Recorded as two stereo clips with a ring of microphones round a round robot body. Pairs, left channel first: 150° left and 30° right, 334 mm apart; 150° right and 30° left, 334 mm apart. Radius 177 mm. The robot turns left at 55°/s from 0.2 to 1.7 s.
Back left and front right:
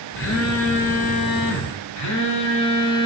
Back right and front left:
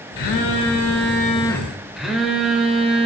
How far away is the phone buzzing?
About 1.3 m.